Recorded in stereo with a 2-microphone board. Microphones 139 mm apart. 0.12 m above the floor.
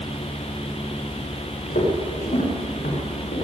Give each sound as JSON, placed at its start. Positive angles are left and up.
{"t": 1.7, "sound": "footsteps", "side_deg": 85, "distance_m": 5.5}